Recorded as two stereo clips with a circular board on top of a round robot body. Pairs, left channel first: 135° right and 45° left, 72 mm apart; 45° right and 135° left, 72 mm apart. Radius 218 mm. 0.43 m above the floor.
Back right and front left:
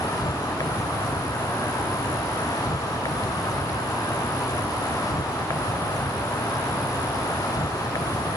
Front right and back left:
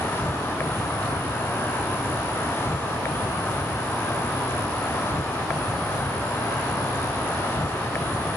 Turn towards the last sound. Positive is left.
turn(degrees=-105)